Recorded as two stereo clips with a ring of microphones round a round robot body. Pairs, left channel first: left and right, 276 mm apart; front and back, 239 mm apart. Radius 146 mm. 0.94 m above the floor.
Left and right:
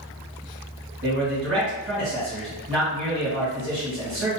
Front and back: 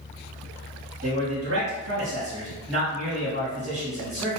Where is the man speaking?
140° right, 1.6 m.